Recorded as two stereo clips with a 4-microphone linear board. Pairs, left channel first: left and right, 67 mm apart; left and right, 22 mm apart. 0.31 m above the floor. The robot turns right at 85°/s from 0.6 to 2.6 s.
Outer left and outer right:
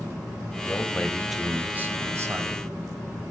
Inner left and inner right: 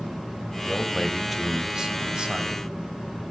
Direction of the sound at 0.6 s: 125° left.